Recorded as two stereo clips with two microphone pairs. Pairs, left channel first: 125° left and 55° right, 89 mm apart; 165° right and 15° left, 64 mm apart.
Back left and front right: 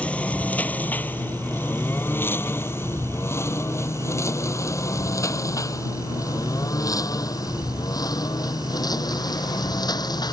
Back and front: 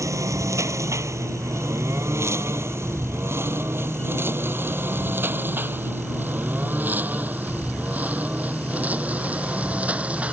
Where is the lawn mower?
50° left; by 10.3 s 85° left.